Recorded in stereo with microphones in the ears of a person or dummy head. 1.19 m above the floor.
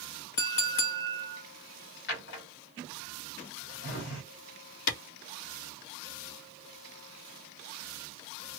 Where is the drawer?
65° left (ahead or behind), 1.8 m.